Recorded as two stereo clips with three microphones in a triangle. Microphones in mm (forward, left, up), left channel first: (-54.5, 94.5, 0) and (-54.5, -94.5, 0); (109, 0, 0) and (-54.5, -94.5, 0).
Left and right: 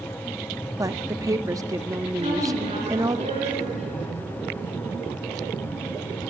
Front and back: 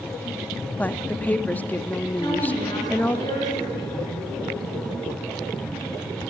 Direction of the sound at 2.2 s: 40° right.